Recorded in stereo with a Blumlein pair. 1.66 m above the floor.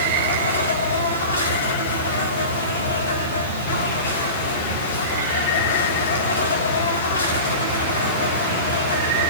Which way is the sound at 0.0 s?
70° left.